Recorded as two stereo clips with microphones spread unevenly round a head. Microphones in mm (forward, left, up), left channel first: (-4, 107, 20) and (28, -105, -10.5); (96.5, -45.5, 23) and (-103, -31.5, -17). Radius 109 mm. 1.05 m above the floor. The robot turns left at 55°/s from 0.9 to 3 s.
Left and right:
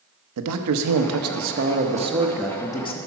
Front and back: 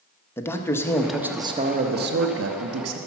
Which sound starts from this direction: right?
A man speaking, at 0.4 s.